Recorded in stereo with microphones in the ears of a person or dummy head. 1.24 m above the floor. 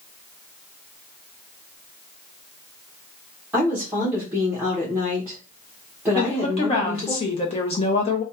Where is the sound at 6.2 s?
25° left (ahead or behind), 0.8 m.